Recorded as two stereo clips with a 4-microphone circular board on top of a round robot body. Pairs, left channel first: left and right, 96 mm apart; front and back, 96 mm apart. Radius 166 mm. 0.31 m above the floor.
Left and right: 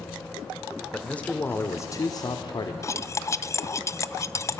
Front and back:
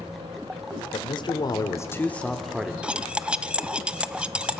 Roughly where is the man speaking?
Ahead.